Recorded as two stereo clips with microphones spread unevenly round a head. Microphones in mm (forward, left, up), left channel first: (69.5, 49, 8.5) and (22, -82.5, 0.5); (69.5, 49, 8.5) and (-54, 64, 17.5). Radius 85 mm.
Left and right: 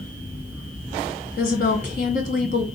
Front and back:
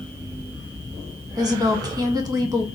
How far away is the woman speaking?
About 1.5 m.